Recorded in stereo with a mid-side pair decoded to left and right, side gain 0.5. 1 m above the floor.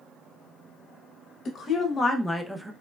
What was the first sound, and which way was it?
A woman speaking, 55° left.